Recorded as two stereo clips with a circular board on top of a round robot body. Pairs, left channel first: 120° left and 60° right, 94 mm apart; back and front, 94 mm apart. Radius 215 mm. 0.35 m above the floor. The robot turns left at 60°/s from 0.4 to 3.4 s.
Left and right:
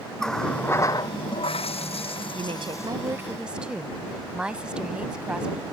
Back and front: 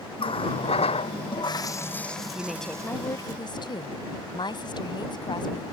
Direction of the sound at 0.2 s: 155° right.